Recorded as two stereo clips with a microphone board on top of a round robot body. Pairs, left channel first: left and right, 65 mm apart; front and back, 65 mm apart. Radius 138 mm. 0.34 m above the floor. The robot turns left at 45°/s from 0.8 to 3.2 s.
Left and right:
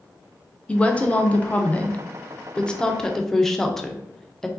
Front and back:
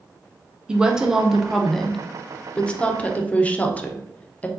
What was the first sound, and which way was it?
A woman speaking, 125° left.